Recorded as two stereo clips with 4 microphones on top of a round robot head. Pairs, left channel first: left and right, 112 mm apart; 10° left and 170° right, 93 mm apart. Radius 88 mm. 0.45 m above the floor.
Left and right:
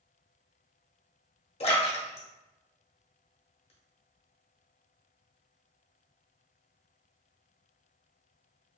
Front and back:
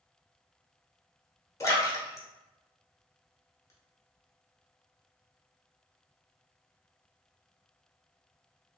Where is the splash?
65° left, 0.9 m.